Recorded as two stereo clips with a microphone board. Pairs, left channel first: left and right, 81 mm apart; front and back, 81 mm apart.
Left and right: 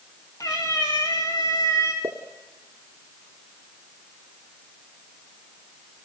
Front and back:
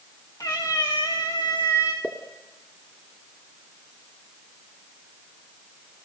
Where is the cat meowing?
45° left, 4.5 m.